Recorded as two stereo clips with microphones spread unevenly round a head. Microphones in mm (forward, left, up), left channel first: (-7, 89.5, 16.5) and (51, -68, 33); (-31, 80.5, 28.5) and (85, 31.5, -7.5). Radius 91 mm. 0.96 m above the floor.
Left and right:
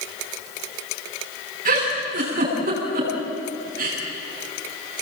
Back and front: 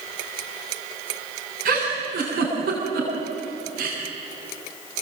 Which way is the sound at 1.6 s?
30° right.